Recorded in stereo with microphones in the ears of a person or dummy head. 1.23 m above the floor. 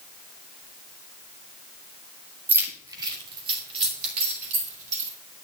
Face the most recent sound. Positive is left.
turn(degrees=-45)  # may be behind; listen again after turning